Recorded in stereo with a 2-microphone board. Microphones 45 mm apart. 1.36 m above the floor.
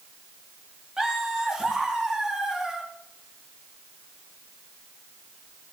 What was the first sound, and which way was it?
Laughter, 15° right (ahead or behind).